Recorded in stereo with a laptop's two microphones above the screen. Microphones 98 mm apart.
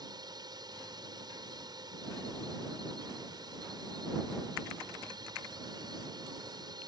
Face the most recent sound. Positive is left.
turn(degrees=-45)  # may be behind; listen again after turning